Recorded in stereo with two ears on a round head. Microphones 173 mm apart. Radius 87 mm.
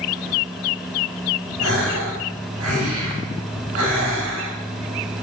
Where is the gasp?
70° right (ahead or behind), 4 m.